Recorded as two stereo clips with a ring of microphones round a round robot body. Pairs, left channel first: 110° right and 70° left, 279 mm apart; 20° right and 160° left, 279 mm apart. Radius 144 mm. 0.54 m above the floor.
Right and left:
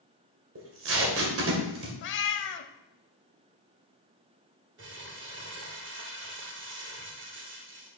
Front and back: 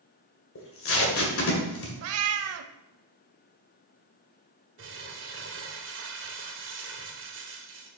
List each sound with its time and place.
0.6 s tape being pulled: 25° left, 1.9 m
2.0 s a cat meowing: 160° right, 0.5 m
4.8 s crumpling: 115° left, 1.7 m